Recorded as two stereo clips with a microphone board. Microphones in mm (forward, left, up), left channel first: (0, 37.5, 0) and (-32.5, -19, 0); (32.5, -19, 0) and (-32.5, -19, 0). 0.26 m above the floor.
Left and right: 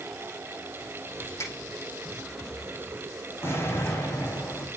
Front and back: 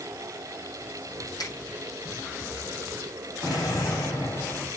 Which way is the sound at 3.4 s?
5° left.